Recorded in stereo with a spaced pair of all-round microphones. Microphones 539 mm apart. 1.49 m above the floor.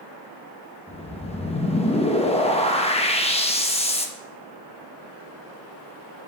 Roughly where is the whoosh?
Centre.